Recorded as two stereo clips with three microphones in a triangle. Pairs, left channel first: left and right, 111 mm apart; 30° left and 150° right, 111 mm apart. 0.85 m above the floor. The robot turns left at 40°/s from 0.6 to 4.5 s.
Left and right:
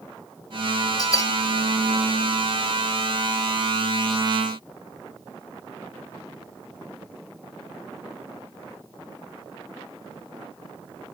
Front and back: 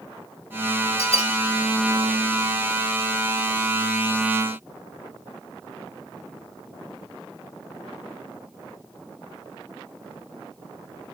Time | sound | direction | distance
1.0 | a bell | 40° left | 1.4 m